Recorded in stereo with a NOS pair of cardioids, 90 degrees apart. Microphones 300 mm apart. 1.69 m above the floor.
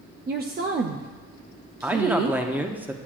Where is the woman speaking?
35° right, 0.5 m.